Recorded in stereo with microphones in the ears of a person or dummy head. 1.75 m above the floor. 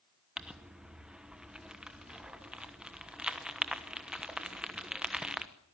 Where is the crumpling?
5° right (ahead or behind), 1.2 m.